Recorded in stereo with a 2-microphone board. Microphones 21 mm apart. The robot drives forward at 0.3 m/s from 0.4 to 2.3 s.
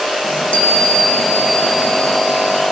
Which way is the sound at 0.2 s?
65° left (ahead or behind).